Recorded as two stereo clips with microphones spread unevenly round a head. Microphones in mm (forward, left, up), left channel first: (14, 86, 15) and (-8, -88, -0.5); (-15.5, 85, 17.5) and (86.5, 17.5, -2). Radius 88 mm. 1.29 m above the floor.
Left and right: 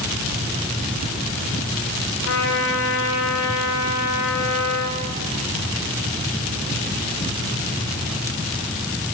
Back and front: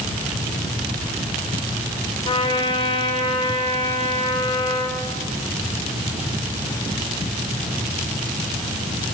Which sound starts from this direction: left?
A trumpet, at 2.2 s.